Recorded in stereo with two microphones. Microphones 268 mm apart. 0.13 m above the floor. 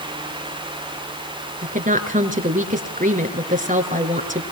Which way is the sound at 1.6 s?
30° right (ahead or behind).